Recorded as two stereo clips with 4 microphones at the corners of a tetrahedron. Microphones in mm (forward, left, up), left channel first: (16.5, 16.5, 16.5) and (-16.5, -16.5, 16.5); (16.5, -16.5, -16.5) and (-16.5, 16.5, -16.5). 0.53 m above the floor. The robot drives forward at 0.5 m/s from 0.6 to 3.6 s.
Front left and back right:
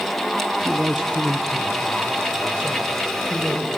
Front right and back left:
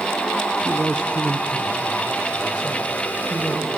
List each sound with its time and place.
0.6 s a man speaking: 170° left, 0.6 m; by 3.7 s straight behind, 1.8 m